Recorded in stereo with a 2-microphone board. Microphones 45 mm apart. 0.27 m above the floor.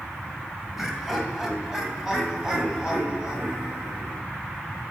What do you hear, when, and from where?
0.8 s laughter: 5° right (ahead or behind), 1.4 m; by 4.2 s 15° right (ahead or behind), 2.5 m